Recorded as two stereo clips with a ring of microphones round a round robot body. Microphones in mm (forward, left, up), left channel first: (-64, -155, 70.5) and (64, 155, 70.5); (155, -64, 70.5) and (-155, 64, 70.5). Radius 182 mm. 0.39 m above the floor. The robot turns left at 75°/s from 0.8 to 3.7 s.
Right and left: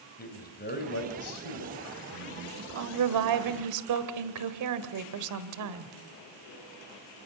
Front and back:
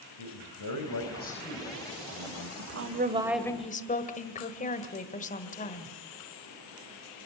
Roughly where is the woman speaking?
Behind left.